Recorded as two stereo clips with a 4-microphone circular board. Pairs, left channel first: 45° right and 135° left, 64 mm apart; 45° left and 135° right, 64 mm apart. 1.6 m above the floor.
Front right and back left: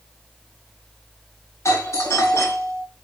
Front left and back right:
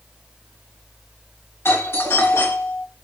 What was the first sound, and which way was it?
A doorbell, 5° right.